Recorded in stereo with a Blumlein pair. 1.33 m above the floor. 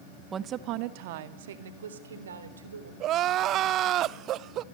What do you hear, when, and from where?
0.3 s a woman speaking: 20° right, 1.3 m; by 2.9 s 70° right, 4.5 m
3.0 s crying: 35° right, 0.6 m